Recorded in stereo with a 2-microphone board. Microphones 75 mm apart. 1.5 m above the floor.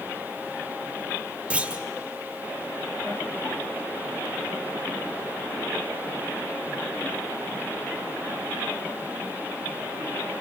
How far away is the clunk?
About 1.4 m.